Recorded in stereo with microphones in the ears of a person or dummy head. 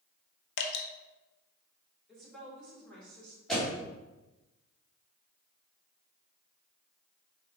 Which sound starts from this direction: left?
Dripping, at 0.6 s.